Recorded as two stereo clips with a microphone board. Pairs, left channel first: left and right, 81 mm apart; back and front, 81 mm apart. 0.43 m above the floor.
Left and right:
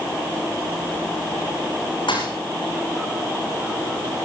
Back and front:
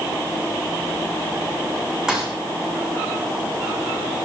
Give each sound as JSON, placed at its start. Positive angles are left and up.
{"t": 2.1, "sound": "a thud", "azimuth_deg": 80, "distance_m": 7.5}